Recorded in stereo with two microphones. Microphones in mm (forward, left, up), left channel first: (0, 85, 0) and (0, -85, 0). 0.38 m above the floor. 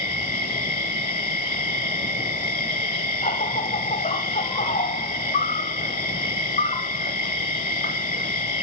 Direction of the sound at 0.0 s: 60° left (ahead or behind).